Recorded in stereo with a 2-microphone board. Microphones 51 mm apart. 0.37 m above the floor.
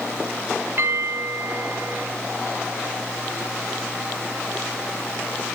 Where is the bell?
50° right (ahead or behind), 7.5 m.